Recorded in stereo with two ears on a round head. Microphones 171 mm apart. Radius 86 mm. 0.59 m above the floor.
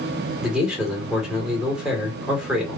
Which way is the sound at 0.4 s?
5° right (ahead or behind).